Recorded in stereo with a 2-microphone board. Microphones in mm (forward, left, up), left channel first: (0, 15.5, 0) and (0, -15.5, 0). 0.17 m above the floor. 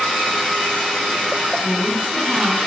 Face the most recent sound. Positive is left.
turn(degrees=-30)  # may be behind; listen again after turning